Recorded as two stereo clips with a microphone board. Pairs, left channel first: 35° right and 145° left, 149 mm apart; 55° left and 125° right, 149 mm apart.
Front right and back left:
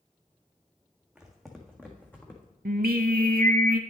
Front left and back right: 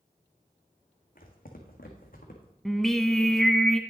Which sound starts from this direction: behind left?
Singing, at 2.6 s.